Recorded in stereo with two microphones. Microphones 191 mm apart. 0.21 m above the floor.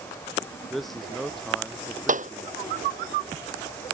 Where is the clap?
40° right (ahead or behind).